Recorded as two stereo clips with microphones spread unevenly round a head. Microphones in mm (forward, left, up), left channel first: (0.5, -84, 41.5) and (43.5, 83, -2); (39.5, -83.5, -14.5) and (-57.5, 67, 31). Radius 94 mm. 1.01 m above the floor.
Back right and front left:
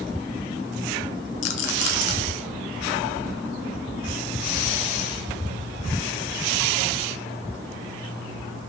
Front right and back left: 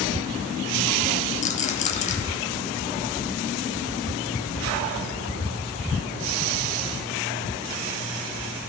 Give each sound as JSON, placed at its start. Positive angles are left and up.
{"t": 1.4, "sound": "a rattle", "azimuth_deg": -110, "distance_m": 1.9}